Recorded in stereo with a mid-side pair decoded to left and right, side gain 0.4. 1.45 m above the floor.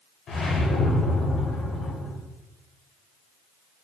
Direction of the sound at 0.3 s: 65° left.